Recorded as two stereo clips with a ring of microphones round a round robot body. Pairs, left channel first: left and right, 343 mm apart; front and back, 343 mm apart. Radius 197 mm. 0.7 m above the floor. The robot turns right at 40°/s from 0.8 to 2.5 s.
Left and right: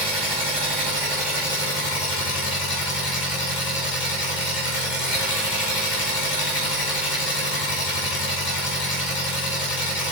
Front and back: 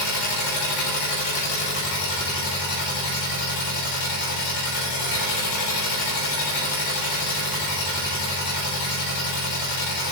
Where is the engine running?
15° right, 2.5 m; by 10.1 s 55° left, 2.5 m.